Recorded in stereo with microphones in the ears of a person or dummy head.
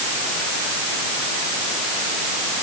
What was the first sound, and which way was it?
Only background noise.